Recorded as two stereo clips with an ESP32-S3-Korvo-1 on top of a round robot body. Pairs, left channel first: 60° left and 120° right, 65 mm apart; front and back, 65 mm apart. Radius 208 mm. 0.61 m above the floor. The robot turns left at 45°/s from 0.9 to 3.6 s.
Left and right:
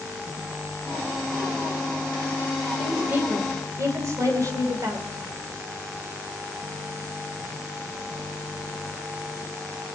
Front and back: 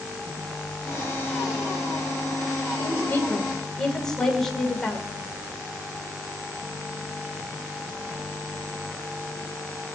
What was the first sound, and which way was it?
A woman speaking, 45° right.